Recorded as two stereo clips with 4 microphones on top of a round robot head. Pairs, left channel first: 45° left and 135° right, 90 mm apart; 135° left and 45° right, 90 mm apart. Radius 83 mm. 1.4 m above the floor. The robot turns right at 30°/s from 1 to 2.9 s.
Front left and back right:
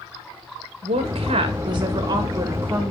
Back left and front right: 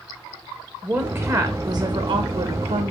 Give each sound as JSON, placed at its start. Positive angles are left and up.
{"t": 0.8, "sound": "a woman speaking", "azimuth_deg": -115, "distance_m": 1.8}